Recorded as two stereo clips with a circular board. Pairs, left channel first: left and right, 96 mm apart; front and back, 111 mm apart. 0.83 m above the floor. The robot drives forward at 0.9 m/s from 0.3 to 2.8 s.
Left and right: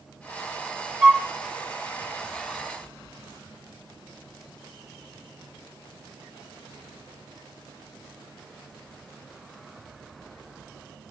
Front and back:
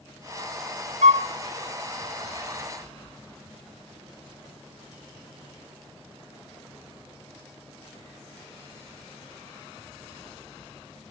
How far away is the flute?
About 0.7 m.